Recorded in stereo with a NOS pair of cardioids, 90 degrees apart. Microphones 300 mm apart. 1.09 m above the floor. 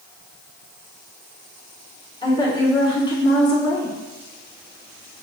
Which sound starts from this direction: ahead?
A woman speaking, at 2.2 s.